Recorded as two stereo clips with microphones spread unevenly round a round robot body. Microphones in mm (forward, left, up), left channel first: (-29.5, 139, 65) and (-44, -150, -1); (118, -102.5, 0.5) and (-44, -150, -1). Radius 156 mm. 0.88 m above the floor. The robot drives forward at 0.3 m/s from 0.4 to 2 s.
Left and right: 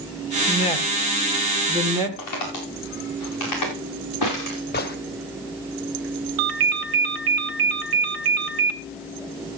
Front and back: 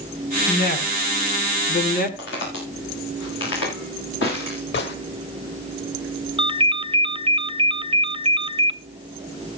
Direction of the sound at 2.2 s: 50° left.